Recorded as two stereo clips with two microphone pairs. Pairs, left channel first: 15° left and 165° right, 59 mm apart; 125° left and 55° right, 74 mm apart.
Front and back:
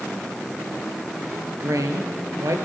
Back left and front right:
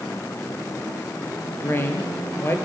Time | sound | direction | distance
1.6 | a woman speaking | straight behind | 3.5 m